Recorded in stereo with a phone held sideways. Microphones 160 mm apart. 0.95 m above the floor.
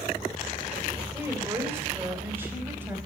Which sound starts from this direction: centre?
A woman speaking, at 1.1 s.